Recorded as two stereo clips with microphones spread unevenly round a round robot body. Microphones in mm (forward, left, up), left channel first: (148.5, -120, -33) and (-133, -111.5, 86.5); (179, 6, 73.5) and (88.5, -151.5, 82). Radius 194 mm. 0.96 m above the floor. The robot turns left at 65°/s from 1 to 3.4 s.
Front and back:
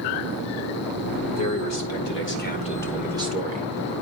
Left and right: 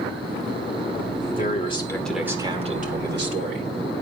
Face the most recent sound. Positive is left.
turn(degrees=-110)